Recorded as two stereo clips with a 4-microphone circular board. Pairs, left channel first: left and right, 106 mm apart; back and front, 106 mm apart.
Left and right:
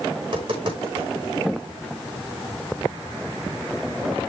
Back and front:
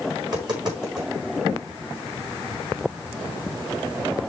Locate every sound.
0.2 s tapping: 50° right, 4.5 m